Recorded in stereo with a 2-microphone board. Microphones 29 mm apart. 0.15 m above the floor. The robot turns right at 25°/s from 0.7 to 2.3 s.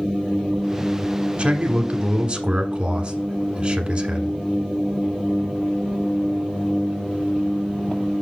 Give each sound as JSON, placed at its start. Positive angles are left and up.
{"t": 1.4, "sound": "a man speaking", "side_deg": -35, "distance_m": 1.2}